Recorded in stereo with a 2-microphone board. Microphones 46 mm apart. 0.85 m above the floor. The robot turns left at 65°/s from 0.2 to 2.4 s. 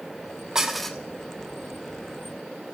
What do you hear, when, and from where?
0.6 s dishes clattering: 15° right (ahead or behind), 0.9 m; by 1.0 s 15° left (ahead or behind), 0.9 m